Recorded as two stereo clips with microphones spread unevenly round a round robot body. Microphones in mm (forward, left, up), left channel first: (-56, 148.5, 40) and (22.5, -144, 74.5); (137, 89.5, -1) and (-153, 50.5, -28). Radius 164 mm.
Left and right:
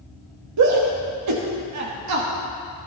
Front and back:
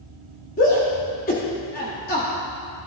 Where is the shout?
55° right, 1.5 m.